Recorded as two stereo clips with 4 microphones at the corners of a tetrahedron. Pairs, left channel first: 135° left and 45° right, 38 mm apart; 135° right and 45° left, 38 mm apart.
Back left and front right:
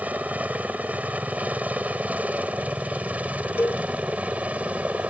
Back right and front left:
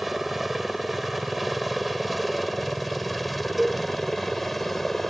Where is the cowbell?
130° left.